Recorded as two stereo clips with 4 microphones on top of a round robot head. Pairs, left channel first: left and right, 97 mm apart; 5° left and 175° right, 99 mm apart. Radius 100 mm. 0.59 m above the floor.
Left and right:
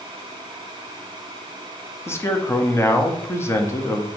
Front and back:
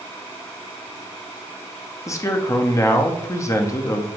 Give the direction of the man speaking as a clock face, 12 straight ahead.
11 o'clock.